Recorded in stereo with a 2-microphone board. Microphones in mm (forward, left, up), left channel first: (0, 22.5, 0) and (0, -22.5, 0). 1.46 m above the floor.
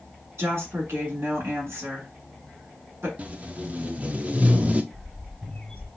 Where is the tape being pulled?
30° right (ahead or behind), 0.5 m.